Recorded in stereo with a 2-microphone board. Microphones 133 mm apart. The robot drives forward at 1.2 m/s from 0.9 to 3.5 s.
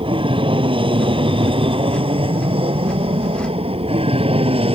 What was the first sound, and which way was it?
An aircraft, 40° right (ahead or behind).